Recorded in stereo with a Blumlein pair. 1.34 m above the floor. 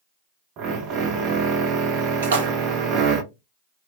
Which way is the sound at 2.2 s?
65° right.